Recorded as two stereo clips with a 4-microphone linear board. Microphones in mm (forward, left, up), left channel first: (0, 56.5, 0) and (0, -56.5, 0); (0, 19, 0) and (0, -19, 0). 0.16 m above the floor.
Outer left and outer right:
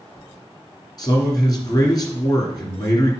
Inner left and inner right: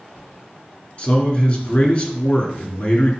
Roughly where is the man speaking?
Left.